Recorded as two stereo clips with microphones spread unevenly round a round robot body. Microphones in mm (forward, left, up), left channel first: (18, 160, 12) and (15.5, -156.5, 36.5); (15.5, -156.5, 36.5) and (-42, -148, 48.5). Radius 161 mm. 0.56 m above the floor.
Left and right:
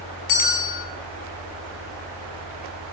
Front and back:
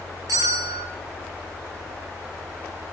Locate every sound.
0.3 s a bell: 120° left, 5.5 m